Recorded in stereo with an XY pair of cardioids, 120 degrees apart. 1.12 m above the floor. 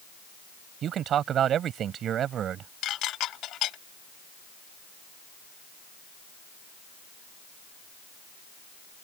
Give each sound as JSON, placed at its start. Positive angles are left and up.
{"t": 0.8, "sound": "a man speaking", "azimuth_deg": -55}
{"t": 2.8, "sound": "dishes clattering", "azimuth_deg": 65}